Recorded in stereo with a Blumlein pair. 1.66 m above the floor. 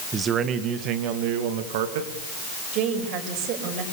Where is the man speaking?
20° right, 1.8 m; by 2.1 s 55° right, 3 m.